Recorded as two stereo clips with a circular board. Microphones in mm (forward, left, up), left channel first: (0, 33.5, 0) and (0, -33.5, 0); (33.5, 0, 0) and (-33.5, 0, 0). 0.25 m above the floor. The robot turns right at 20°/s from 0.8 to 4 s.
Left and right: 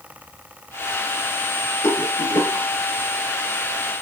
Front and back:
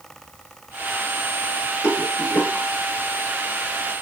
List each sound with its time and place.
1.8 s a rattle: 50° left, 1.9 m; by 2.6 s 65° left, 1.9 m